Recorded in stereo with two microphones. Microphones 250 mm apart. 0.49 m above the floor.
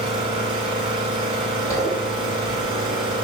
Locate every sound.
0.0 s an engine running: 20° right (ahead or behind), 3.5 m
1.7 s a zipper: 15° left (ahead or behind), 3.5 m